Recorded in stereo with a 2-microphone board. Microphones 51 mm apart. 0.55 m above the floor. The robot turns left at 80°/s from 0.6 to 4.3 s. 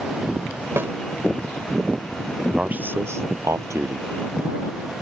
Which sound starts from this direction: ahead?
A man speaking, at 2.5 s.